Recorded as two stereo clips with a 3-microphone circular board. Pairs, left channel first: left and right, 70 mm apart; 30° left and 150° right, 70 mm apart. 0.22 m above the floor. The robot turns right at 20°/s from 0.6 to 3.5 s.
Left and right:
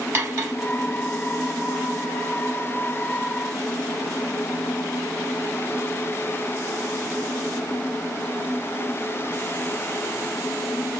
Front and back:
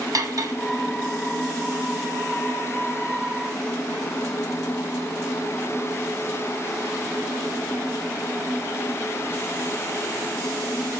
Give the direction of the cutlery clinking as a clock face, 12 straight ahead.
5 o'clock.